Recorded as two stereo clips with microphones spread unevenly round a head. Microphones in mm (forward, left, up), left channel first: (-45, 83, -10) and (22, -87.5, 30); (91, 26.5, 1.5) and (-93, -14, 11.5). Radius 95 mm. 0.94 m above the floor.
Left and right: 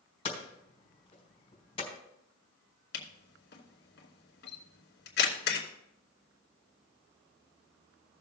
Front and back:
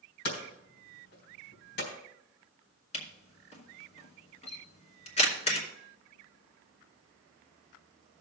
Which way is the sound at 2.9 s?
70° left.